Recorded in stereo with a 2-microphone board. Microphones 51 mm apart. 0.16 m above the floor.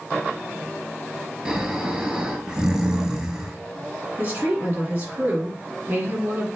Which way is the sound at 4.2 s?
40° right (ahead or behind).